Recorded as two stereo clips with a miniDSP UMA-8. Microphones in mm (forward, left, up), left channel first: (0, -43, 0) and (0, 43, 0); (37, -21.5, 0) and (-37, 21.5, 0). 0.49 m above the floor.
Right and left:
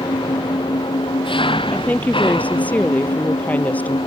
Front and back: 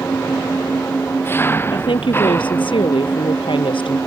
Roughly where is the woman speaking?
Ahead.